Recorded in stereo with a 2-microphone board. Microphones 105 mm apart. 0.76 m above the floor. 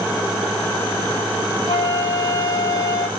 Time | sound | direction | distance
1.7 | a flute | 45° left (ahead or behind) | 2.5 m